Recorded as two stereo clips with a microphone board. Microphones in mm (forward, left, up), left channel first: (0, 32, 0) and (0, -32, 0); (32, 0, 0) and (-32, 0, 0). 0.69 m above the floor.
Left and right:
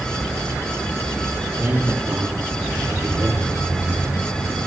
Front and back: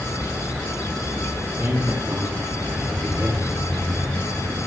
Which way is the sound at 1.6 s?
125° right.